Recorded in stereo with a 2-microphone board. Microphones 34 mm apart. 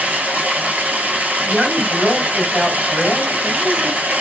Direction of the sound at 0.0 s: 55° right (ahead or behind).